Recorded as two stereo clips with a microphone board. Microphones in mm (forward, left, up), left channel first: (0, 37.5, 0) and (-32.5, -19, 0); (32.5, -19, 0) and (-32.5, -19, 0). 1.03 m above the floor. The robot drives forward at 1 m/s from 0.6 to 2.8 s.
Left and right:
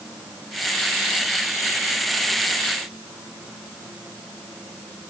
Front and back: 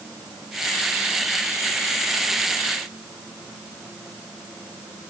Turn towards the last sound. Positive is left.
No sound to turn to.